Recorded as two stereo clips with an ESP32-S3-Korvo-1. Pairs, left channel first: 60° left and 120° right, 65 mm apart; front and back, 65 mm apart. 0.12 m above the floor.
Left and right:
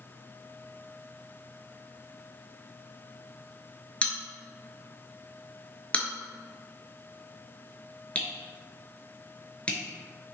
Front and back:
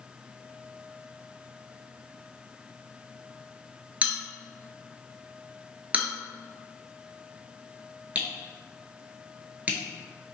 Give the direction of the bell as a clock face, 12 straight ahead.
8 o'clock.